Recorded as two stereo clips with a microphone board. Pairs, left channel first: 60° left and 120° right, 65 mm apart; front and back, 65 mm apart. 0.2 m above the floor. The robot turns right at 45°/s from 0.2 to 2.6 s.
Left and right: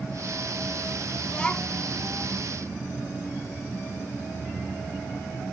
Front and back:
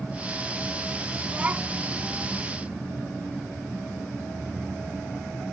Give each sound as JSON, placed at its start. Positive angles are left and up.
{"t": 1.2, "sound": "a child speaking", "azimuth_deg": 120}